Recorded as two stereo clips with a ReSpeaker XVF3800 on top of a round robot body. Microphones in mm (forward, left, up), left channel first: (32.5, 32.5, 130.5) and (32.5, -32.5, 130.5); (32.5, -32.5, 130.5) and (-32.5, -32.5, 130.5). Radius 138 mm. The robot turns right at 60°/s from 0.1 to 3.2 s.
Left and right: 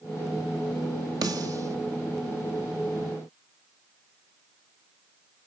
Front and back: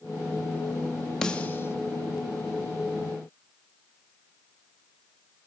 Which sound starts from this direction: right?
A snare drum, at 1.2 s.